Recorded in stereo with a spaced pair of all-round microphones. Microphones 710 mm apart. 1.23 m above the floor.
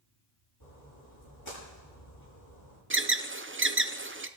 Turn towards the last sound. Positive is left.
turn(degrees=-20)  # may be behind; listen again after turning